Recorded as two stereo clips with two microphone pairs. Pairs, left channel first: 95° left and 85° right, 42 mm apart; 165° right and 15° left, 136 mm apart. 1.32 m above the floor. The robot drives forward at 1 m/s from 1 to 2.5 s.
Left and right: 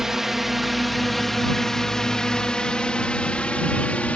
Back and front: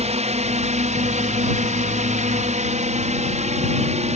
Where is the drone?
5° right; by 4.2 s 40° left.